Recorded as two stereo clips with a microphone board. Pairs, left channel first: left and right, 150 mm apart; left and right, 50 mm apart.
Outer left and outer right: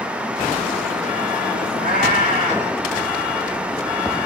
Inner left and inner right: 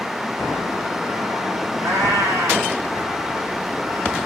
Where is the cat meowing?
75° right (ahead or behind), 6 m.